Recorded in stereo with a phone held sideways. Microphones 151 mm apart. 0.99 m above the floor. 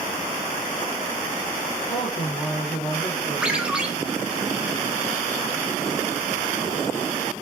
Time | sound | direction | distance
1.9 | a woman speaking | 55° left (ahead or behind) | 3.5 m
3.4 | a ringtone | 5° right (ahead or behind) | 1.5 m